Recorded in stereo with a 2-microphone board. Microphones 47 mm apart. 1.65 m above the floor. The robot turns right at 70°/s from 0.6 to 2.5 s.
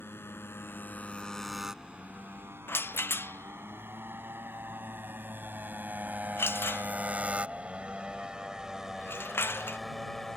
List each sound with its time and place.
0.0 s a motorcycle: 60° left (ahead or behind); by 10.4 s 10° left (ahead or behind)
2.7 s a rattle: 55° left (ahead or behind)